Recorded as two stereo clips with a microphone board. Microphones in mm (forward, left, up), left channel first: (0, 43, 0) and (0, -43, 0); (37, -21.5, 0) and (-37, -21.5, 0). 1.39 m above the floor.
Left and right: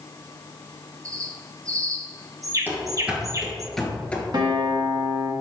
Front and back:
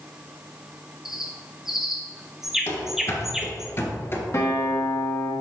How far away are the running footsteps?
About 1.9 m.